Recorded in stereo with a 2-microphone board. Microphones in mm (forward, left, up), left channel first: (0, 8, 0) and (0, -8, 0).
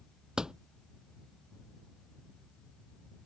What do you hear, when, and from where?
0.4 s a door slam: 55° right (ahead or behind)